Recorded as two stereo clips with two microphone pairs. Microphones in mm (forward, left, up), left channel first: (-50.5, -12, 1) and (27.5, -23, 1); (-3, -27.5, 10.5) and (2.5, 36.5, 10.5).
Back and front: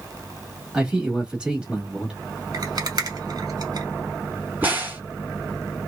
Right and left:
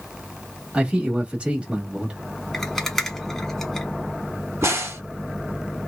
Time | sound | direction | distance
0.7 | a man speaking | 45° left | 1.2 m
2.5 | a rattle | 10° right | 0.8 m
4.6 | a crack | 55° left | 1.2 m